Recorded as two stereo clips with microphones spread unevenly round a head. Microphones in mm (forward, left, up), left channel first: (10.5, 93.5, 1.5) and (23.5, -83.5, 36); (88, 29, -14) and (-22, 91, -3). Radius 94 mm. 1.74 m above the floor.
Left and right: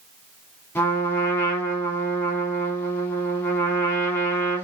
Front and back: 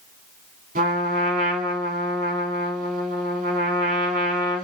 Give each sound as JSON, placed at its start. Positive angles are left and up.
{"t": 0.8, "sound": "a trumpet", "azimuth_deg": 180, "distance_m": 3.0}